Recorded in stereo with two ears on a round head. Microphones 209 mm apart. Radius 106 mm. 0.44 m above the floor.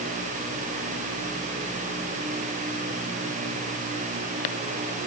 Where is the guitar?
No guitar in this recording.